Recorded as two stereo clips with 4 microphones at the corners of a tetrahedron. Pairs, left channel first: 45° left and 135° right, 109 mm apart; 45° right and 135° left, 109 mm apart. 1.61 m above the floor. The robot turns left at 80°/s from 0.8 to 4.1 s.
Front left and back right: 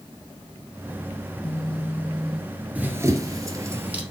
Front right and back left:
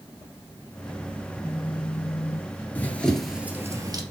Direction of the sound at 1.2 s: 35° left.